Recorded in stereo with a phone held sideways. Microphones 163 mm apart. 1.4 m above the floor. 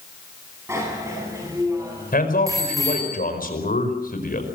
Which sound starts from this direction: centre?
A bicycle bell, at 0.7 s.